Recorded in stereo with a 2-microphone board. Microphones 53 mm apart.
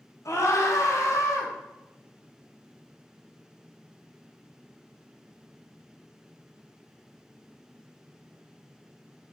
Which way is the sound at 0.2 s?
70° left (ahead or behind).